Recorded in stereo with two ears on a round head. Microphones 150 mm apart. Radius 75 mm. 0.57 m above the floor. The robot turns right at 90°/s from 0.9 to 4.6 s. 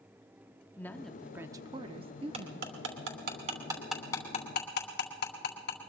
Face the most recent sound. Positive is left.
turn(degrees=60)  # may be behind; listen again after turning